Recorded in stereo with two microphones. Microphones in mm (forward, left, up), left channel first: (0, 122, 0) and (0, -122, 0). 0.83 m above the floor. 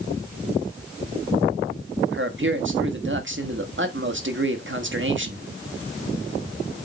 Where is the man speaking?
50° right (ahead or behind), 1.4 m.